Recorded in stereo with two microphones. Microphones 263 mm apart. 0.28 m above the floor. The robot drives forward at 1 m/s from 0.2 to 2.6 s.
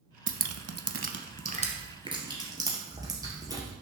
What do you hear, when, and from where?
0.3 s dripping: 50° right (ahead or behind), 0.7 m; by 3.7 s 15° right (ahead or behind), 2.0 m